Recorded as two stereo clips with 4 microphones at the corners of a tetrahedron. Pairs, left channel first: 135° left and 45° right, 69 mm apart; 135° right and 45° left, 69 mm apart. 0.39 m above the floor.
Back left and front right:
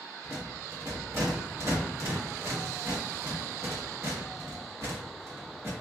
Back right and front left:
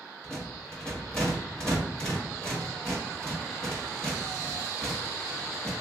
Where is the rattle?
65° right, 1.6 m.